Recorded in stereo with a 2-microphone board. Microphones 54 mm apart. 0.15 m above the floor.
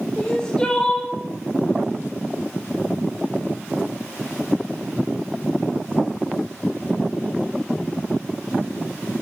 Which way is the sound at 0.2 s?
15° left (ahead or behind).